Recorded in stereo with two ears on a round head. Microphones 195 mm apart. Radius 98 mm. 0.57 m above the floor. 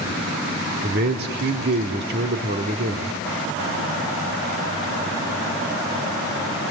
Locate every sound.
0.8 s a man speaking: 50° right (ahead or behind), 1.5 m